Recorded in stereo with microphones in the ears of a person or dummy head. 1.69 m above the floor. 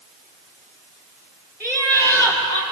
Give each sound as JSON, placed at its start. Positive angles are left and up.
{"t": 1.6, "sound": "laughter", "side_deg": 10, "distance_m": 6.0}